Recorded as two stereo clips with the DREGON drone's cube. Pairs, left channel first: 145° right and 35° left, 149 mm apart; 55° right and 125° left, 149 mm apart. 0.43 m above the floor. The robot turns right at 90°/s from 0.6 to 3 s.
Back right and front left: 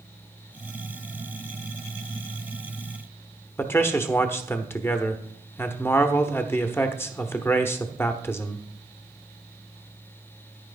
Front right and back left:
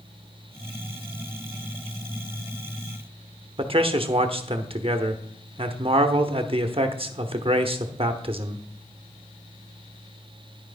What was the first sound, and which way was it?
A man speaking, 150° left.